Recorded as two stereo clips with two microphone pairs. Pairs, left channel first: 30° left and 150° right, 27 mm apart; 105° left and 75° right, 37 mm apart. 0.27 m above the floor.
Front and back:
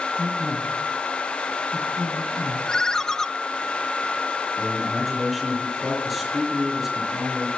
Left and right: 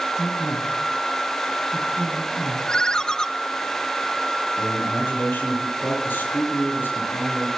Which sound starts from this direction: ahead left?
A ringtone, at 2.7 s.